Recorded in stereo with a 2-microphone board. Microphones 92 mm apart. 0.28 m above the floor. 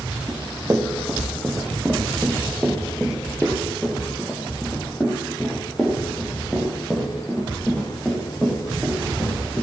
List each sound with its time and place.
0.3 s running footsteps: 30° right (ahead or behind), 2 m; by 9.6 s 15° left (ahead or behind), 6 m